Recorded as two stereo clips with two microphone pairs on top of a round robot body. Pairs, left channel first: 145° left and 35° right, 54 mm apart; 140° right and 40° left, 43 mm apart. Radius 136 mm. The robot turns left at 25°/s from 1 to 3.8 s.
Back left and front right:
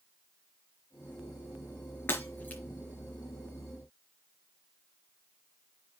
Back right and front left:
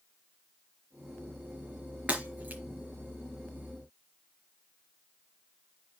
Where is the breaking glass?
95° left, 4 m; by 2.6 s 85° left, 4 m.